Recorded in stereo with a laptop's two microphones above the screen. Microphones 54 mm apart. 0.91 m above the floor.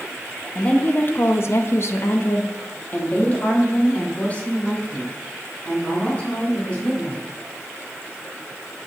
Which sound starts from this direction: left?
A woman speaking, at 0.6 s.